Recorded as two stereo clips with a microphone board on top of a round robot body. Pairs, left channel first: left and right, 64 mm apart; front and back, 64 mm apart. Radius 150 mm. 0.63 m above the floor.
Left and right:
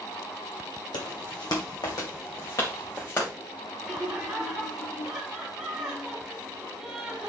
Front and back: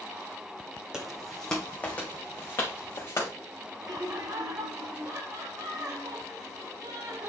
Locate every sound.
0.9 s footsteps: 100° left, 1.8 m; by 3.3 s 45° left, 4 m
3.8 s laughter: 170° right, 4.5 m